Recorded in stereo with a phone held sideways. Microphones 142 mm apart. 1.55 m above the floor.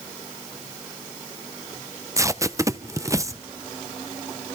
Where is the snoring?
No snoring in this recording.